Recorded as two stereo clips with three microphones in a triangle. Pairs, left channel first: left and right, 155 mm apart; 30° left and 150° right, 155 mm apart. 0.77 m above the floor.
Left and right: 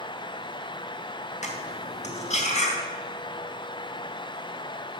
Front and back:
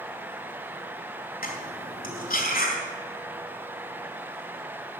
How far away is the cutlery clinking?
About 2.5 m.